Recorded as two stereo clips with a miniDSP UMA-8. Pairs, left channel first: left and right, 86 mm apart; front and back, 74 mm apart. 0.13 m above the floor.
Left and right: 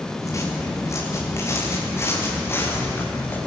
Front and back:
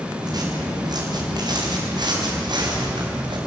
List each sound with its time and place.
0.2 s footsteps: 145° left, 8.5 m; by 3.4 s 155° left, 9 m